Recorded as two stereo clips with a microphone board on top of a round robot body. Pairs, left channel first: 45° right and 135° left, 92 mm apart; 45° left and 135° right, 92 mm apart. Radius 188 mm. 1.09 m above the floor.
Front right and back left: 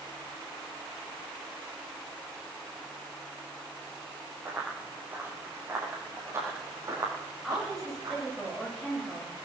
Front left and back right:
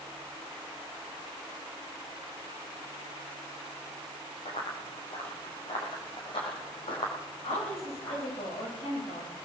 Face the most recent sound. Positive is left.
turn(degrees=45)